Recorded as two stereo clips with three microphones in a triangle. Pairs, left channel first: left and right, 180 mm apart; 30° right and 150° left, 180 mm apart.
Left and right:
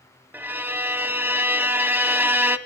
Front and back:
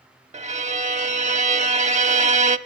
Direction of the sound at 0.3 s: 165° right.